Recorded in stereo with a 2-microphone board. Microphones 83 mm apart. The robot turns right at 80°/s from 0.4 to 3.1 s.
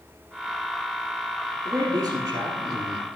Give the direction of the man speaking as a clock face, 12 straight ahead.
4 o'clock.